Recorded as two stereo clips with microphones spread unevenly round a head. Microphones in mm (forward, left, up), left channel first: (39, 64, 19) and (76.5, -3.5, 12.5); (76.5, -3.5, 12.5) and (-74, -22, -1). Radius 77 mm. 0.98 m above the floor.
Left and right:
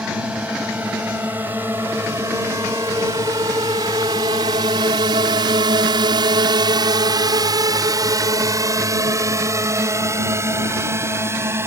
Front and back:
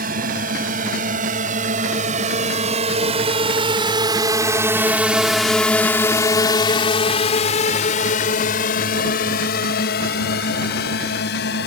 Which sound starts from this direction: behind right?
A drone, at 0.0 s.